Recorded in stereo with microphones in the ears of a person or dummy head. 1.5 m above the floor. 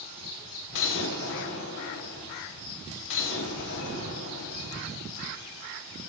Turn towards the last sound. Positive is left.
turn(degrees=70)  # may be behind; listen again after turning